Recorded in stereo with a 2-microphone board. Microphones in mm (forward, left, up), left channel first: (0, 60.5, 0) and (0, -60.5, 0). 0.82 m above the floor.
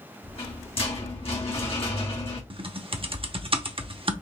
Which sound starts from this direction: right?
Typing on a keyboard, at 2.5 s.